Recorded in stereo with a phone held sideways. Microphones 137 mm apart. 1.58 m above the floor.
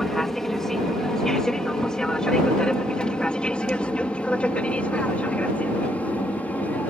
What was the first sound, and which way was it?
An aircraft, centre (ahead or behind).